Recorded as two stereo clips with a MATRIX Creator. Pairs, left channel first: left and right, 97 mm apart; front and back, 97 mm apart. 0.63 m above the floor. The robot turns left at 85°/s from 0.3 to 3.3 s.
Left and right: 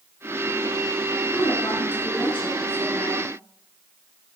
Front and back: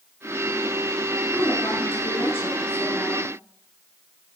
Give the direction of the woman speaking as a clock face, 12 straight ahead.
10 o'clock.